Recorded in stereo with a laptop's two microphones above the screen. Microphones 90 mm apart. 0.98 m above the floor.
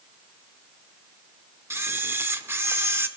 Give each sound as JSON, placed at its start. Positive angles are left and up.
{"t": 1.7, "sound": "a camera shutter", "side_deg": -25, "distance_m": 0.7}